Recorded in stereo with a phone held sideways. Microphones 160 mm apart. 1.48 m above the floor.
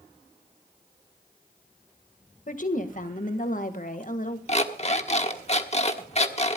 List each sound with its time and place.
2.5 s a woman speaking: 55° left (ahead or behind), 1.7 m
4.5 s an alarm clock: 40° left (ahead or behind), 1.3 m